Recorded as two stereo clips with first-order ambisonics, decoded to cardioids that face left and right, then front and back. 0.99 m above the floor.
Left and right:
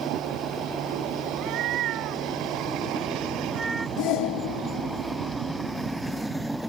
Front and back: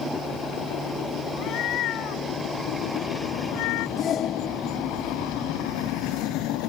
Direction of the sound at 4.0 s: 60° left.